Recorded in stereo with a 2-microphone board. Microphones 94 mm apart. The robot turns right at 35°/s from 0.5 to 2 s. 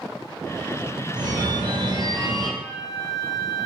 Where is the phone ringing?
45° right (ahead or behind), 0.5 m.